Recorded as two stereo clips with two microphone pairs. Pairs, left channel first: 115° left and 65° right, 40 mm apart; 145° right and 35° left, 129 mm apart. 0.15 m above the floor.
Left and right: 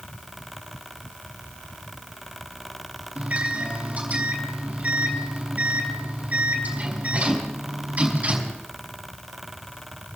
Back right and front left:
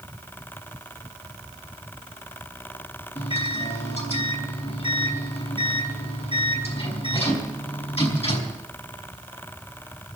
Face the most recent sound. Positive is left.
turn(degrees=-110)